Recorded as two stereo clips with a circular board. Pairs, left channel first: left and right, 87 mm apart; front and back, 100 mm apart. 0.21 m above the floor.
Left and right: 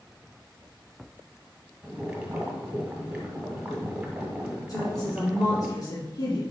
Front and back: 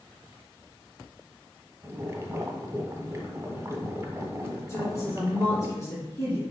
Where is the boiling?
155° right, 1.4 m.